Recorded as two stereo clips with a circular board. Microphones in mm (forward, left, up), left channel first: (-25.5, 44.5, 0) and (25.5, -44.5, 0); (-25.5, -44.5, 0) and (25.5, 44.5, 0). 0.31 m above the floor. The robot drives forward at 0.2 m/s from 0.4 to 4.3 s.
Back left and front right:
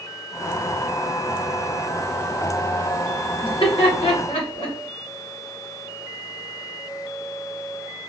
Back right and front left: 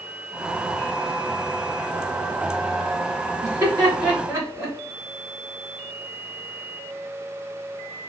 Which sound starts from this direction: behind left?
Laughter, at 3.4 s.